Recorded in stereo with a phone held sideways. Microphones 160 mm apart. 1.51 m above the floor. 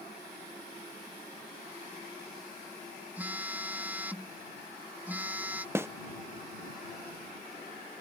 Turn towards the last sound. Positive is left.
turn(degrees=-15)  # may be behind; listen again after turning